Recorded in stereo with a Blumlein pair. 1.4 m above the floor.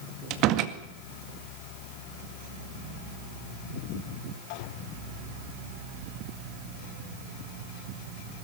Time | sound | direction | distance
0.3 | a door slam | 40° right | 1.9 m